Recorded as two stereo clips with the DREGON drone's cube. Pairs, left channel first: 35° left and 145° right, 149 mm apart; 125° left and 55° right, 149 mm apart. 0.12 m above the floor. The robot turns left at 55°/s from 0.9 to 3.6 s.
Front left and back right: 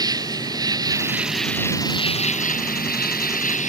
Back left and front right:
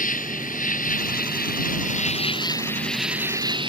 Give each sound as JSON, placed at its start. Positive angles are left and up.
{"t": 0.0, "sound": "an insect", "azimuth_deg": 150}